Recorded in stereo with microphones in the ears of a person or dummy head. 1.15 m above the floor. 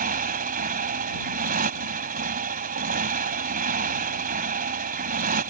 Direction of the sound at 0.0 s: 40° right (ahead or behind).